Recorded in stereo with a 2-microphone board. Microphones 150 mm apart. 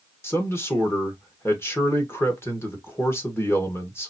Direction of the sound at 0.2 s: 15° left (ahead or behind).